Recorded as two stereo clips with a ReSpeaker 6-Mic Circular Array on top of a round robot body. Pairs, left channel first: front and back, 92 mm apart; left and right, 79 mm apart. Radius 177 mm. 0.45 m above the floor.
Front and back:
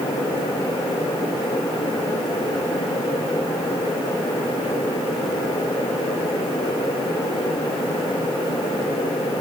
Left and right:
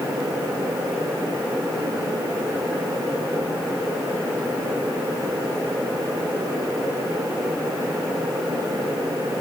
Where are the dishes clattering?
No dishes clattering in this recording.